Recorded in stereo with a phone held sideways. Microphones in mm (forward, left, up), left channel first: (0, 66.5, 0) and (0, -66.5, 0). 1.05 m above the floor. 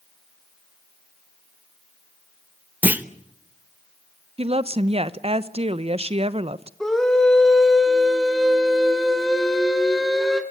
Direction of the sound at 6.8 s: 5° left (ahead or behind).